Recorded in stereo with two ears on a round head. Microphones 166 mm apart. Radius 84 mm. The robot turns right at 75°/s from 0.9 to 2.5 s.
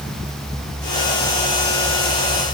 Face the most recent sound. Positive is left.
No sound to turn to.